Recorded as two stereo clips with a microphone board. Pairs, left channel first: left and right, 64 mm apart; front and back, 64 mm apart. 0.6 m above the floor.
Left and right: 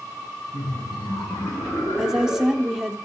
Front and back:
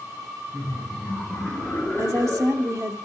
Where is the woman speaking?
165° right, 1.1 m.